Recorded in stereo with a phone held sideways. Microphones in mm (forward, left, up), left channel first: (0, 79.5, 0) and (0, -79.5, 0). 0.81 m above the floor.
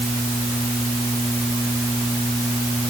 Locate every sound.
Only background noise.